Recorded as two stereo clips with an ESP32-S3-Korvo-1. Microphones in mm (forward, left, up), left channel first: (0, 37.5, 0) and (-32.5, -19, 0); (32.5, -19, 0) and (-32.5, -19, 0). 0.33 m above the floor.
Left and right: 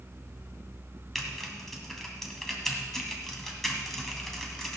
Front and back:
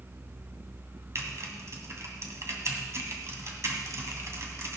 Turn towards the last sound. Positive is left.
turn(degrees=145)